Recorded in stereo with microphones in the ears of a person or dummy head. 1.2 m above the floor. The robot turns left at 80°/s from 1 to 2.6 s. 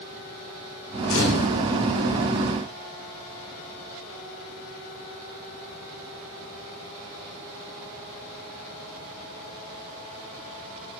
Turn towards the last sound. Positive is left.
turn(degrees=0)